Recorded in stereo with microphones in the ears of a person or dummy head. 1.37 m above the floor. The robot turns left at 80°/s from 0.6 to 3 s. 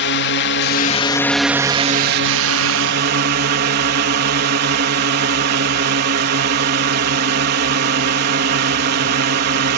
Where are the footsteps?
I don't hear footsteps.